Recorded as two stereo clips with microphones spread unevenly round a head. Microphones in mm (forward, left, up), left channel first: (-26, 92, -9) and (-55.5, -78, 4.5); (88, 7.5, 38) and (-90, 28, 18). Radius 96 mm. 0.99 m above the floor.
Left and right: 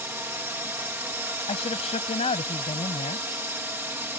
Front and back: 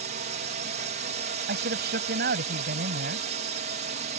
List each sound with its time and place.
0.0 s a drone: 175° right
1.5 s a man speaking: 135° left